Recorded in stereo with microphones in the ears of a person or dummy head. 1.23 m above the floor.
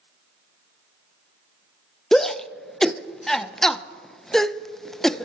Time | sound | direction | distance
2.1 | a shout | 5° left (ahead or behind) | 0.5 m